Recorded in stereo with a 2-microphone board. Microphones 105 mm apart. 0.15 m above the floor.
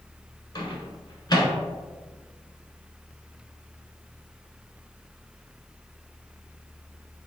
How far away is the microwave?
About 1.1 m.